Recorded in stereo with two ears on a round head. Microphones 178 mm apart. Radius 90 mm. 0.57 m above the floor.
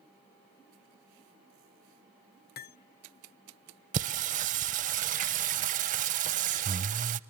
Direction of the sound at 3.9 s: 40° right (ahead or behind).